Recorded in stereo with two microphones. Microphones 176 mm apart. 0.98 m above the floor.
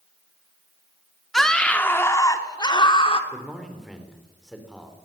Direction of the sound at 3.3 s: Centre (ahead or behind).